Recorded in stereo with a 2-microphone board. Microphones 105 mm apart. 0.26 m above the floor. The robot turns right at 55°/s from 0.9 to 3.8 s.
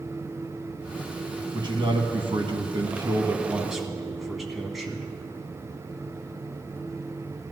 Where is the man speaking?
125° right, 1.8 m; by 5.1 s straight ahead, 1.8 m.